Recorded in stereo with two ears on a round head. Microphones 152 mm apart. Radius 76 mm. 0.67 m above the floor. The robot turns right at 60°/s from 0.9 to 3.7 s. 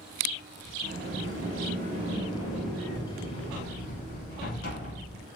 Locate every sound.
0.8 s a sliding door: 105° right, 1.3 m; by 5.2 s 65° left, 1.3 m